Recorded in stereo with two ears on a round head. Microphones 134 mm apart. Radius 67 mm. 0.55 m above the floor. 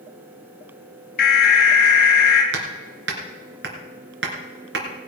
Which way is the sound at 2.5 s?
85° right.